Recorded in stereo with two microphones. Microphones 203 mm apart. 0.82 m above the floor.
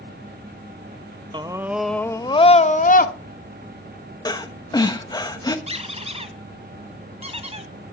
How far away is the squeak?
About 1.8 m.